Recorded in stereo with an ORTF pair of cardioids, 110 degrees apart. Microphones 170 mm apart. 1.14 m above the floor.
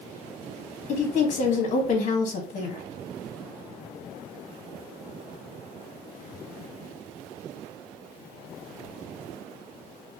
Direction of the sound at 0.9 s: 45° left.